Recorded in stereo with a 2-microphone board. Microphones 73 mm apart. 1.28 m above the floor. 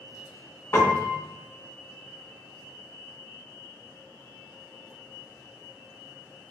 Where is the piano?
35° left (ahead or behind), 0.5 m.